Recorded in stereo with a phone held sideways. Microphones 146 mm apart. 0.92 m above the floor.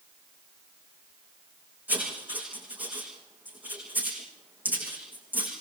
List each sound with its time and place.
1.9 s writing: 10° right (ahead or behind), 10 m